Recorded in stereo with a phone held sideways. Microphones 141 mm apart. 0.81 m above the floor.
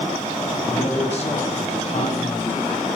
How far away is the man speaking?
About 3 m.